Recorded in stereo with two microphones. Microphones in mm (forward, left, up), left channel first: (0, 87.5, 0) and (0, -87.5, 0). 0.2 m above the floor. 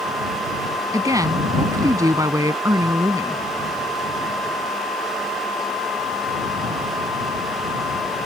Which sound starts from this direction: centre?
A woman speaking, at 0.9 s.